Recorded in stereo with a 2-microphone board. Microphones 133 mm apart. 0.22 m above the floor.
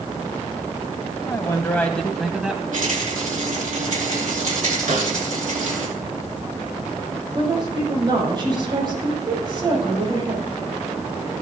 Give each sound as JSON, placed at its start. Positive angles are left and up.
{"t": 1.3, "sound": "a man speaking", "side_deg": 25, "distance_m": 1.0}
{"t": 2.7, "sound": "a rattle", "side_deg": -80, "distance_m": 4.5}
{"t": 4.9, "sound": "a snare drum", "side_deg": -70, "distance_m": 1.8}
{"t": 7.3, "sound": "a woman speaking", "side_deg": -35, "distance_m": 6.5}